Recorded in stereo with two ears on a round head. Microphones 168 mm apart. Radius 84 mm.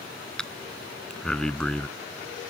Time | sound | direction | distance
0.4 | breathing | 5° left (ahead or behind) | ?